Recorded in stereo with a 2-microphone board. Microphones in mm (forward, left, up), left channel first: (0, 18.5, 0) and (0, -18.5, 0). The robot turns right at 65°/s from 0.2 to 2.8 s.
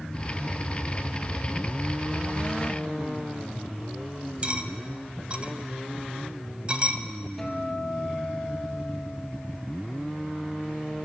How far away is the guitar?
About 1.9 m.